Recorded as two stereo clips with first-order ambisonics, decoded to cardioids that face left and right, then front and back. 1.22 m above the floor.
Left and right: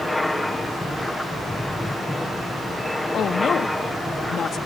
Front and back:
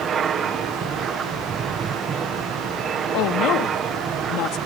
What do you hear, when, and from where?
0.0 s an aircraft: 170° left
3.1 s a woman speaking: 30° left